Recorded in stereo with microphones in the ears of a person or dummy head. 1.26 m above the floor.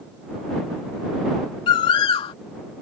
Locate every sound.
1.7 s a bird: 30° left (ahead or behind)